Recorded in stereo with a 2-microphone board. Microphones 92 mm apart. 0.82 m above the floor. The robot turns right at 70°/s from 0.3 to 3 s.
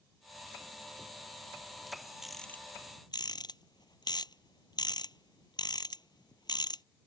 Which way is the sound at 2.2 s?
5° right (ahead or behind).